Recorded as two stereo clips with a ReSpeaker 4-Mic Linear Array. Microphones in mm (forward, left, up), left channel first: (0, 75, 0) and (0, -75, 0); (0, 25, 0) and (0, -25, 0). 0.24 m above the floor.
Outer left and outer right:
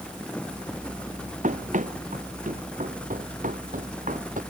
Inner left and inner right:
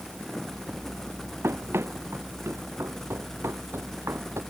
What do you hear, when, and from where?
1.4 s running footsteps: 55° right (ahead or behind); by 4.4 s 60° right (ahead or behind)